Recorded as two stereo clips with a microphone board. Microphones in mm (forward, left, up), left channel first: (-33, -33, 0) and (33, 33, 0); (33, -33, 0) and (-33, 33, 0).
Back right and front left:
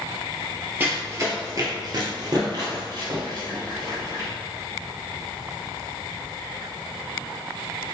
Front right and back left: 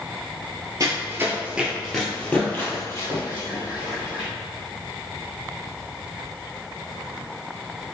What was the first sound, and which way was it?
Running footsteps, 105° left.